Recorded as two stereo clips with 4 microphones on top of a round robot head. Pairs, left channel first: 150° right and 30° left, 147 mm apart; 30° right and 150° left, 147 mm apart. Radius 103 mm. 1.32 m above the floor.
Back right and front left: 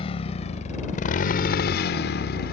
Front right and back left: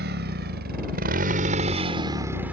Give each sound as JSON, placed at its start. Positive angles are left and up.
{"t": 0.0, "sound": "a motorcycle", "azimuth_deg": 160}